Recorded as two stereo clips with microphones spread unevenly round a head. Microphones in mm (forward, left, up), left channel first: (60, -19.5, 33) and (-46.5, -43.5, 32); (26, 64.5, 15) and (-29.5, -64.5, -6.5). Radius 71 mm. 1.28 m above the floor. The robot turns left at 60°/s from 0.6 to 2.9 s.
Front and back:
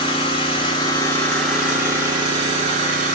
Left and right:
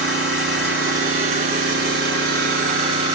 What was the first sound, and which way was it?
An engine running, 25° right.